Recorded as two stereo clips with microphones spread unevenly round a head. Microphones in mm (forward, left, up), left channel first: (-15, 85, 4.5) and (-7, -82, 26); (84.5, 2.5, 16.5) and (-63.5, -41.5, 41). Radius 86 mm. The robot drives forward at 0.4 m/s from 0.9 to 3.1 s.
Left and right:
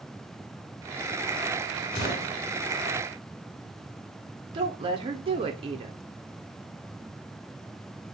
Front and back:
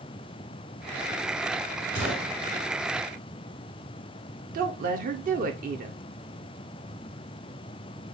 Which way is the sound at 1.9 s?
25° left.